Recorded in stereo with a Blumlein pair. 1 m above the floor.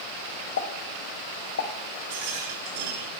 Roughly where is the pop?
Ahead left.